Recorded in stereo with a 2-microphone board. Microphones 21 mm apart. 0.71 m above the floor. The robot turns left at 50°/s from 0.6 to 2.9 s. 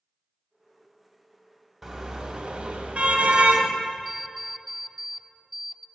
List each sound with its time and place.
1.8 s a car horn: 10° right, 2 m; by 3.7 s 60° right, 2 m
4.0 s an alarm clock: 5° right (ahead or behind), 0.5 m